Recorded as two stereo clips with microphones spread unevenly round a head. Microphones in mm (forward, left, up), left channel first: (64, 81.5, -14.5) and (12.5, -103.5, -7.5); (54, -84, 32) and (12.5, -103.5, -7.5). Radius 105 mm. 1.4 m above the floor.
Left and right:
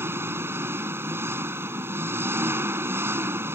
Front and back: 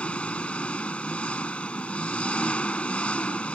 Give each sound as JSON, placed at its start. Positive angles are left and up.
{"t": 0.0, "sound": "an engine running", "azimuth_deg": -30}